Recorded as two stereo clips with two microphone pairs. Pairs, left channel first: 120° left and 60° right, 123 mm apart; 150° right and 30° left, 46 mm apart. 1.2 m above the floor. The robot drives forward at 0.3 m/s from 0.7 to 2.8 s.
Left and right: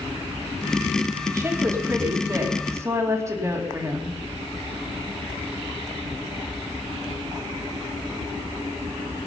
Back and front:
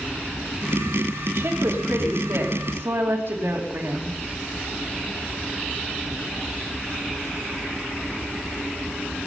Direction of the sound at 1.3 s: 5° left.